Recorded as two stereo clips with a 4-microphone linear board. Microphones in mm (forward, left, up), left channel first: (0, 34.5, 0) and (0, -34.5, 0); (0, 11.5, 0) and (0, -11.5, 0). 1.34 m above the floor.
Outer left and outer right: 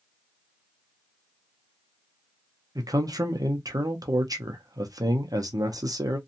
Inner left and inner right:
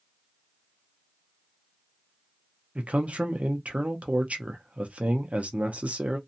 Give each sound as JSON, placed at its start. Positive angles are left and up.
{"t": 2.8, "sound": "a man speaking", "side_deg": -60, "distance_m": 0.8}